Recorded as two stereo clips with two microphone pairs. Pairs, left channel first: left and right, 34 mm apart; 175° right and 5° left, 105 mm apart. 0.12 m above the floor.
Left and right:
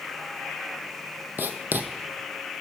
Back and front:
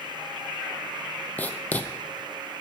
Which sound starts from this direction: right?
Writing, at 1.4 s.